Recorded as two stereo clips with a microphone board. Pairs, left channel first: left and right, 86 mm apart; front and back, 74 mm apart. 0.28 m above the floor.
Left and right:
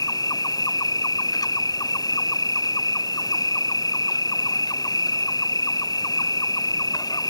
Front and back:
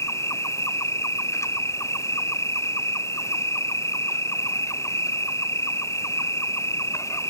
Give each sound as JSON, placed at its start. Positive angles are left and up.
{"t": 0.0, "sound": "an insect", "azimuth_deg": 50}